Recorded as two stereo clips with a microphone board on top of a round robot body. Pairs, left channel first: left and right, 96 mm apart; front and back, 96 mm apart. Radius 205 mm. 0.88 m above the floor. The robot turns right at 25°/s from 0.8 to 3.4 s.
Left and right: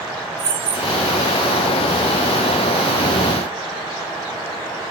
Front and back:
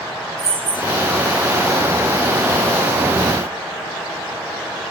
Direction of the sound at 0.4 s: 145° right.